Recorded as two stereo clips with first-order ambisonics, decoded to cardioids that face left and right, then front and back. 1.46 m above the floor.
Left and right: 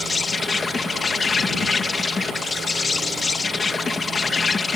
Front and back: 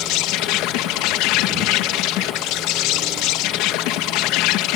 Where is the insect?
15° left.